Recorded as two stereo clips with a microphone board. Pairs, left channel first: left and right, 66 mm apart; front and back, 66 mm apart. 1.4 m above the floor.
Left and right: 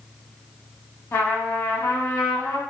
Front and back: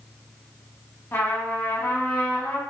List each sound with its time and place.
1.1 s a trumpet: 50° left, 0.8 m